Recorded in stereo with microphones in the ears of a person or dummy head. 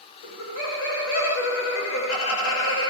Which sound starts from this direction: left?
Laughter, at 0.2 s.